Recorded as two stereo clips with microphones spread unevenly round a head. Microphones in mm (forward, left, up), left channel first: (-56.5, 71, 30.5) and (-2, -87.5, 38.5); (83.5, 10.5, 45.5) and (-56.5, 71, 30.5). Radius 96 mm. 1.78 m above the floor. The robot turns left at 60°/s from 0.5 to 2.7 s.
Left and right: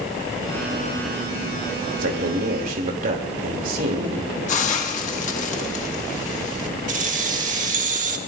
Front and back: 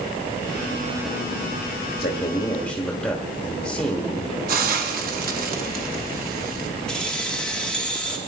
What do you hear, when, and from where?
2.0 s a man speaking: 65° right, 2.5 m; by 4.3 s 105° right, 2.5 m
4.5 s a hiss: 145° left, 1.6 m
6.9 s keys jangling: 105° right, 1.5 m